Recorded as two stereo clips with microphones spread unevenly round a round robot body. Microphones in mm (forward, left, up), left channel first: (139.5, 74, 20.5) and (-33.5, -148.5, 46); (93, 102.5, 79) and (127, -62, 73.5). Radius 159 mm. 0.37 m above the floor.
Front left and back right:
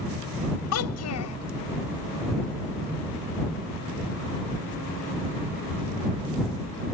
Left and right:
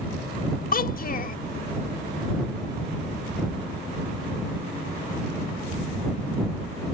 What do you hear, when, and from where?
0.7 s a child speaking: 70° left